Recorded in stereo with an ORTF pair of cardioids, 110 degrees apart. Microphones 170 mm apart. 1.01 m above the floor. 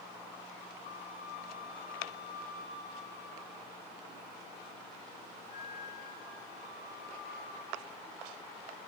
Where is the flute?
55° left, 4 m.